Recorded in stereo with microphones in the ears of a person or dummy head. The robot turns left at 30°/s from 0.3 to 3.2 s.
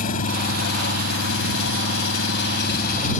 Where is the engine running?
135° left; by 3.2 s 50° left.